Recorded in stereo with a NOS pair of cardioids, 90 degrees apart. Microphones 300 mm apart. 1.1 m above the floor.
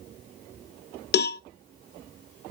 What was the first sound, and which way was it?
A cowbell, 35° left.